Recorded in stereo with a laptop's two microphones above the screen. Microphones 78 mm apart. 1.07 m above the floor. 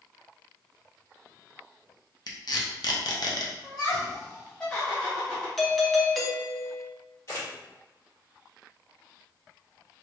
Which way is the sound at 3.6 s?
10° left (ahead or behind).